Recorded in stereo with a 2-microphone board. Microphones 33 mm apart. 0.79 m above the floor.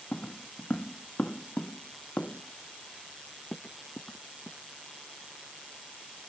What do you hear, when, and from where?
0.1 s footsteps: 50° left (ahead or behind)